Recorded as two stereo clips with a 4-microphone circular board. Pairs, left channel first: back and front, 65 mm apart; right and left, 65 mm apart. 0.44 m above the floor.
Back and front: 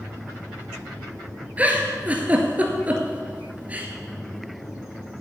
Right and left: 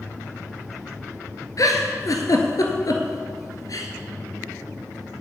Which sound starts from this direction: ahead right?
A giggle, at 1.6 s.